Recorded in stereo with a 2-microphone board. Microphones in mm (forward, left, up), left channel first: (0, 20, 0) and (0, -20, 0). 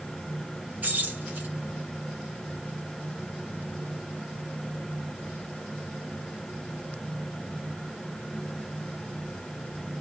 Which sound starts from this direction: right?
Keys jangling, at 0.8 s.